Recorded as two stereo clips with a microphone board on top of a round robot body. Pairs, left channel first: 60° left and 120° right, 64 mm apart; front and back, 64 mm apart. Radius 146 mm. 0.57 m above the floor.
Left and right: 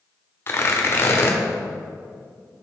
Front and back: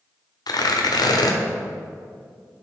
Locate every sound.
0.5 s tearing paper: 10° left, 1.4 m